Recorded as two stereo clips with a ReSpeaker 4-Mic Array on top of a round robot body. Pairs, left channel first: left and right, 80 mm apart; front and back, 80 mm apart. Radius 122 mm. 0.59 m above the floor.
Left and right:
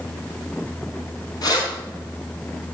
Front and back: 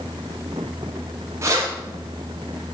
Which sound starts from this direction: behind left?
Keys jangling, at 1.4 s.